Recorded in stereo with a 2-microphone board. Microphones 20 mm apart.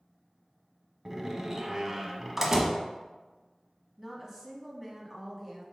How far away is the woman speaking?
About 1.2 m.